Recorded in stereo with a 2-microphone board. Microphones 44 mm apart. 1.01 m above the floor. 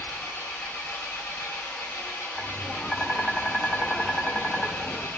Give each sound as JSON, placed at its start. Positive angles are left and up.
{"t": 0.0, "sound": "an engine running", "side_deg": 70, "distance_m": 1.2}
{"t": 2.4, "sound": "tapping", "side_deg": 25, "distance_m": 0.9}